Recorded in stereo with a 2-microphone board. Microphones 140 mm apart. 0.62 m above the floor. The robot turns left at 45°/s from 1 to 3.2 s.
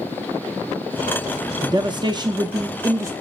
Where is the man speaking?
70° right, 0.6 m; by 3.1 s 135° right, 0.6 m.